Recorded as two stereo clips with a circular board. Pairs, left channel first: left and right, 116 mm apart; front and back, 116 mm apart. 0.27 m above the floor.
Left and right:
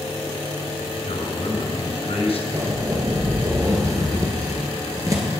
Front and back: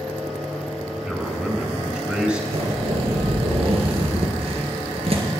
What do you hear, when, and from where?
1.1 s a man speaking: 100° left, 3 m
2.5 s a zipper: 150° right, 3 m